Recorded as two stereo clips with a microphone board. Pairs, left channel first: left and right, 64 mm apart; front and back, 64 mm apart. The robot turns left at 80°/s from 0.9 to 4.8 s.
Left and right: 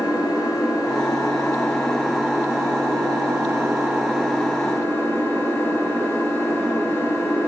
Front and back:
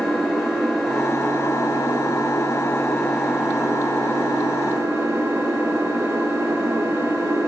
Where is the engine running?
90° left, 7.5 m; by 7.5 s 135° left, 7.5 m.